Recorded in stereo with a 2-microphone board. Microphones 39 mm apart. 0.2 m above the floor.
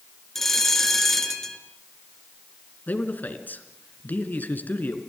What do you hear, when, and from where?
0.3 s a bell: 10° left (ahead or behind), 2.5 m
2.9 s a man speaking: 50° left (ahead or behind), 3 m